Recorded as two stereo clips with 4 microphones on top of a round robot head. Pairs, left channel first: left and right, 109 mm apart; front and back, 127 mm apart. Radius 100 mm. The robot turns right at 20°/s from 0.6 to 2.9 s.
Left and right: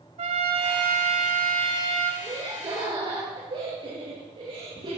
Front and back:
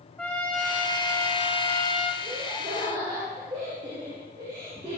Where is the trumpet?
85° right, 3 m; by 2.1 s 50° right, 3 m.